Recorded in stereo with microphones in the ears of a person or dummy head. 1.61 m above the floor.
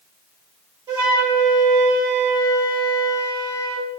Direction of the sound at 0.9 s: 15° right (ahead or behind).